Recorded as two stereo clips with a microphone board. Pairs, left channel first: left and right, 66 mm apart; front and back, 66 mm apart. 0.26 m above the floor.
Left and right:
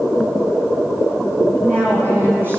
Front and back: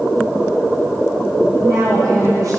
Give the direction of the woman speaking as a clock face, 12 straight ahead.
5 o'clock.